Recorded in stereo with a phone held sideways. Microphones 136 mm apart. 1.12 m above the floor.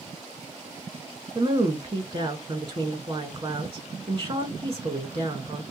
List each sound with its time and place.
1.4 s a woman speaking: 40° right (ahead or behind), 1.1 m